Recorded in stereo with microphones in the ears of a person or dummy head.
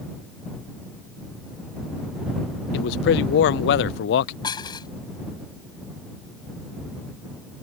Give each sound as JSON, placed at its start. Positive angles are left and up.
{"t": 2.7, "sound": "a man speaking", "side_deg": 70}
{"t": 4.4, "sound": "dishes clattering", "side_deg": 20}